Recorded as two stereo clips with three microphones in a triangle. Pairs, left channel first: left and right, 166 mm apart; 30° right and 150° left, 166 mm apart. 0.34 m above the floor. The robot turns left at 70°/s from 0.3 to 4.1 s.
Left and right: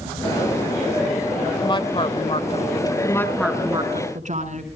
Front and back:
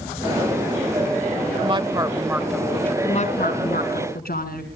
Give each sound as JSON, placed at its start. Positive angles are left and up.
{"t": 1.6, "sound": "a woman speaking", "azimuth_deg": 130, "distance_m": 0.9}
{"t": 3.0, "sound": "a woman speaking", "azimuth_deg": 25, "distance_m": 4.5}